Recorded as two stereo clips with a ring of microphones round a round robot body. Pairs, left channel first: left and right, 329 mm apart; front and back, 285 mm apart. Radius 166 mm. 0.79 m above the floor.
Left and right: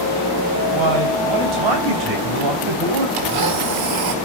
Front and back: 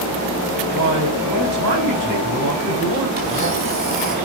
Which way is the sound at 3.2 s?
115° right.